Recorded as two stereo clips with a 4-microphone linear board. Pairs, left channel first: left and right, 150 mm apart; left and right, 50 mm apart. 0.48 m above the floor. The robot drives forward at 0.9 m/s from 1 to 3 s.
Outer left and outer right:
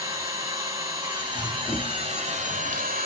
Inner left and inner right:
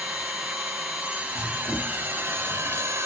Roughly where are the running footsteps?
Centre.